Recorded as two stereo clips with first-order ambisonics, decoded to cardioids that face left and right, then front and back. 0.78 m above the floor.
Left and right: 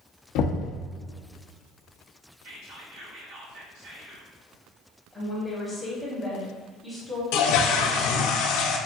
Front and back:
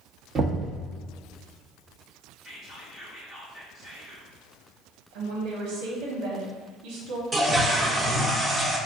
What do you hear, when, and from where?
0.3 s knocking: 115° left, 0.8 m
2.4 s whispering: 70° right, 1.9 m
5.1 s a woman speaking: straight behind, 1.2 m
7.3 s a toilet flushing: 100° left, 0.6 m